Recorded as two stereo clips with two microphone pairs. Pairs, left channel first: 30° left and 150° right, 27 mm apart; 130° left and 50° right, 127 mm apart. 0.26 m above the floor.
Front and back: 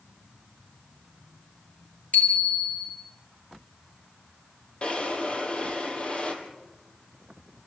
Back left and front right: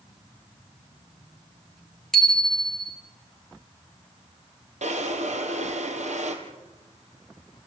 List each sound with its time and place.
2.1 s a bicycle bell: 45° left, 4 m
4.8 s a drawer: 25° right, 3 m